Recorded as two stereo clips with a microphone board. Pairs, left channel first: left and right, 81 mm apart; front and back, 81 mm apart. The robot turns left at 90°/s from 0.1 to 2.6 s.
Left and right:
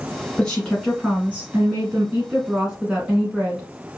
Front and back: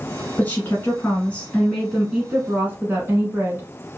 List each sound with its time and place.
0.4 s a woman speaking: 40° left, 1.2 m; by 4.0 s 160° right, 1.2 m